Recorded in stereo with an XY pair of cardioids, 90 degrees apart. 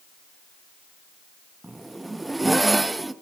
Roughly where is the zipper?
Ahead.